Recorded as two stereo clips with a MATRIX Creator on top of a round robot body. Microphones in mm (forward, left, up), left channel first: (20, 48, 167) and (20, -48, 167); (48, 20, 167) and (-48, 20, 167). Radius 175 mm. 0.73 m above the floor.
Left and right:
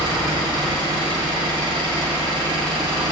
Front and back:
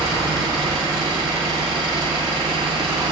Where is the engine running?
130° right, 3.5 m.